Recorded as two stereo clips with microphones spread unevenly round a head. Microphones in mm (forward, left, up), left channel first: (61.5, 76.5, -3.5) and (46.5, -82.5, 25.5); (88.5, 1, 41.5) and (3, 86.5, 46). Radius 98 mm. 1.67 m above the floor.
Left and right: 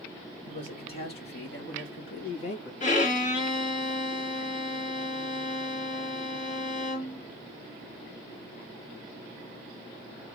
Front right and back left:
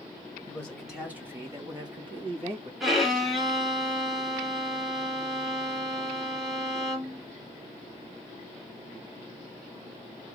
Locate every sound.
0.5 s a man speaking: 35° left, 1.5 m; by 2.7 s 95° left, 2.5 m
2.8 s a violin: 45° left, 1.4 m